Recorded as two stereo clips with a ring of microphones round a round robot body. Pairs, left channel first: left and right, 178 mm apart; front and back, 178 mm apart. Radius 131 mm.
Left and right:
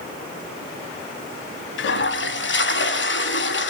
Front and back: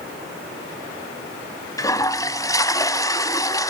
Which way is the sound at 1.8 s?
75° left.